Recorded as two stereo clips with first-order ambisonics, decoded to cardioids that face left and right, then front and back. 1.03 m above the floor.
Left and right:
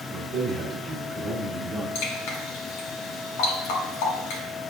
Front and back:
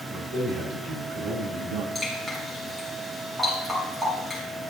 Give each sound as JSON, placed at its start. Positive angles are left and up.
{"t": 0.1, "sound": "a man speaking", "azimuth_deg": -155, "distance_m": 3.0}
{"t": 1.9, "sound": "dripping", "azimuth_deg": 95, "distance_m": 2.5}